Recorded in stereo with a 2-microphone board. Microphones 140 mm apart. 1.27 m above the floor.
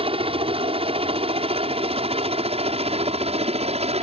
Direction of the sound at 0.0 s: 40° right (ahead or behind).